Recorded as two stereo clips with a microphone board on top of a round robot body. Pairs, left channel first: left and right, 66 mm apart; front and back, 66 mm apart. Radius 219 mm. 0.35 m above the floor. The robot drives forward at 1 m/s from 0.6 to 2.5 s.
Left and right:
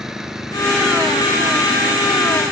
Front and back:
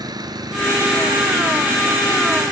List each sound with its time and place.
0.0 s an engine running: 175° right